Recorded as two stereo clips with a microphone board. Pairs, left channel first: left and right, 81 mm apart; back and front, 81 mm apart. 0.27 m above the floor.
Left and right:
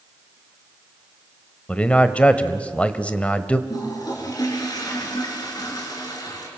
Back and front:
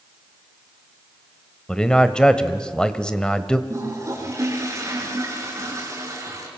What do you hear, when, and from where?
1.7 s a man speaking: 120° left, 1.1 m
3.7 s a toilet flushing: 50° left, 4.5 m